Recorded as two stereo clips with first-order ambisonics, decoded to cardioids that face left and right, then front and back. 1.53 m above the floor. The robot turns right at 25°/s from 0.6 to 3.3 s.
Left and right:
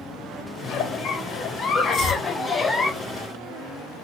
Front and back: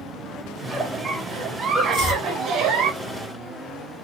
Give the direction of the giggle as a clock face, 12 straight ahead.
8 o'clock.